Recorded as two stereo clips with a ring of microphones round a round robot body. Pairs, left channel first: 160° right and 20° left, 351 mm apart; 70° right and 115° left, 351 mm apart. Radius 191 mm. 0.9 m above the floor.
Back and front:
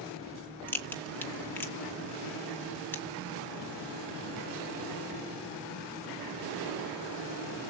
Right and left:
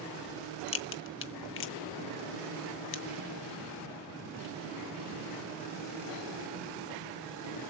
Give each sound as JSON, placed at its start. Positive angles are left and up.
{"t": 0.7, "sound": "a crack", "azimuth_deg": -80, "distance_m": 0.5}